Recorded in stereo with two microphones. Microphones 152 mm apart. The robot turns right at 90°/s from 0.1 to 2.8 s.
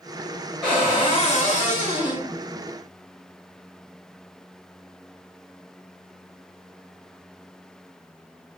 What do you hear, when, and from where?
0.6 s a cupboard door: 5° left, 0.8 m; by 2.3 s 155° left, 0.8 m